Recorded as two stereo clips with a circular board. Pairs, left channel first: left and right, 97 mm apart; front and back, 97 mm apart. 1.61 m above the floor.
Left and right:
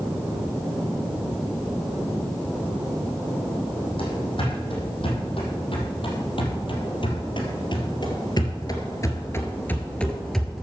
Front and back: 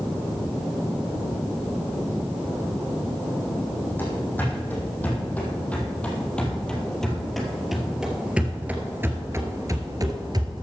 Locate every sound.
4.0 s running footsteps: 70° left, 5 m; by 10.6 s 175° right, 2 m